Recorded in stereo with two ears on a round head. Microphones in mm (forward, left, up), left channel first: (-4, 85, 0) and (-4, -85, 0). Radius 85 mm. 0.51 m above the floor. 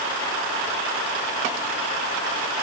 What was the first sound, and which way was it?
Only background noise.